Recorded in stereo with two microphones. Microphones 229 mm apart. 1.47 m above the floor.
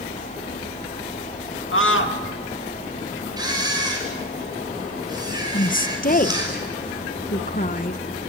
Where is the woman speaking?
35° left (ahead or behind), 1.0 m.